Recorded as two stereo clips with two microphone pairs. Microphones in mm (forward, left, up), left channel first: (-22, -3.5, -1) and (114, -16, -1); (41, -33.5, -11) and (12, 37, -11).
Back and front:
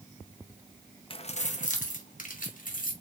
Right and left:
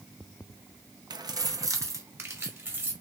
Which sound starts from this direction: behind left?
Keys jangling, at 1.1 s.